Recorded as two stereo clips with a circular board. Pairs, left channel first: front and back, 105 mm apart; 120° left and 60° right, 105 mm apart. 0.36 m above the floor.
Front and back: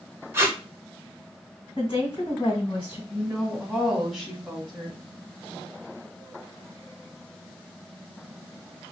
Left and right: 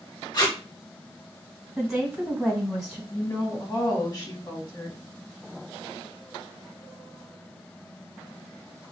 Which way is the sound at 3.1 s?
95° left.